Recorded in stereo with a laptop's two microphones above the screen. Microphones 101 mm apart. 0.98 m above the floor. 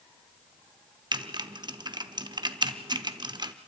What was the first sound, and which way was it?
Typing on a keyboard, 45° right (ahead or behind).